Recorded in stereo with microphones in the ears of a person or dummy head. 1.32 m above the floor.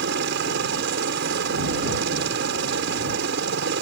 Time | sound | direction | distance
0.0 | a helicopter | 60° right (ahead or behind) | ?